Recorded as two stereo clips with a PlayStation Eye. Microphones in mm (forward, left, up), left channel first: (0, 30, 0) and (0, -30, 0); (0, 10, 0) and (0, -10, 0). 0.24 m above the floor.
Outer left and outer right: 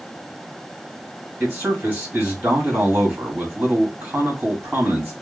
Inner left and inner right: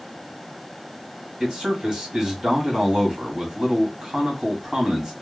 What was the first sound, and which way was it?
A man speaking, 35° right (ahead or behind).